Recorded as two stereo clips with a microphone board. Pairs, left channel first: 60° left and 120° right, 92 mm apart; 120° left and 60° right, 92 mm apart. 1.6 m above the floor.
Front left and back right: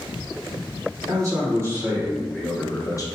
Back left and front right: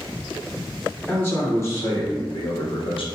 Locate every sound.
1.1 s a man speaking: 175° right, 1.4 m; by 3.0 s 110° left, 0.6 m